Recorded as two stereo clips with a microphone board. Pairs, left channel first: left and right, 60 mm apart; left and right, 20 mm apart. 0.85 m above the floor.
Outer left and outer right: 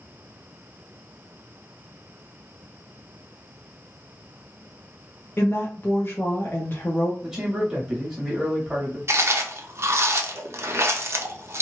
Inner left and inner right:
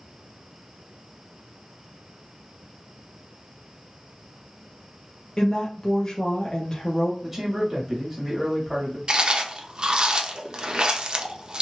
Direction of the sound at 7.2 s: 5° right (ahead or behind).